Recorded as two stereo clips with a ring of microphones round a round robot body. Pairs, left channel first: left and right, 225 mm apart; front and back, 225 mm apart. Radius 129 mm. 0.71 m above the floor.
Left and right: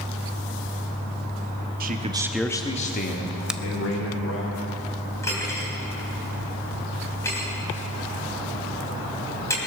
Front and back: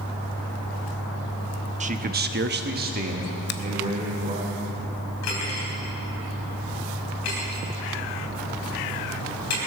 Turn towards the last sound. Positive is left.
turn(degrees=10)